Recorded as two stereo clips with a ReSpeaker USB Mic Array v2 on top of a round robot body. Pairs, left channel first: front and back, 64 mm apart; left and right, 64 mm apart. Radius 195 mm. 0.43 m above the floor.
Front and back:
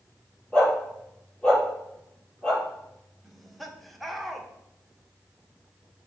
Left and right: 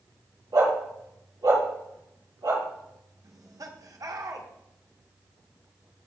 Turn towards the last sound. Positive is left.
turn(degrees=-90)